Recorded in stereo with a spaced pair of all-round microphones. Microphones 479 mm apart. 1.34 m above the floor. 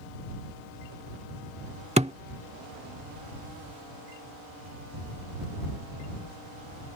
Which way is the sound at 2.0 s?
15° right (ahead or behind).